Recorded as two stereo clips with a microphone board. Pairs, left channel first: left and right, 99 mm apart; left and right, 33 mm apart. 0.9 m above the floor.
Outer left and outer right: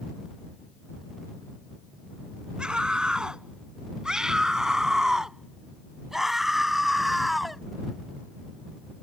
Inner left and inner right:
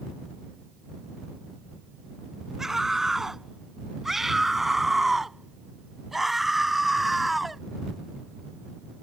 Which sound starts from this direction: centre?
A scream, at 2.6 s.